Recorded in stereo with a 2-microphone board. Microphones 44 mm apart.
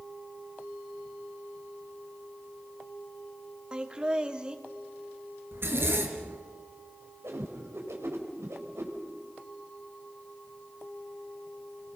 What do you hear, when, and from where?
3.7 s laughter: 20° right (ahead or behind), 2 m
5.5 s a zipper: 60° right (ahead or behind), 3 m
7.2 s a whoosh: 80° right, 4 m